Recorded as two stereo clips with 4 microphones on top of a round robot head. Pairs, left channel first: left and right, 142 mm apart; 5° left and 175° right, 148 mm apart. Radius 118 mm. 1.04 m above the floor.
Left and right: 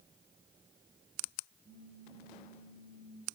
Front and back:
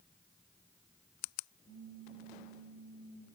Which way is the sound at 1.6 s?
45° right.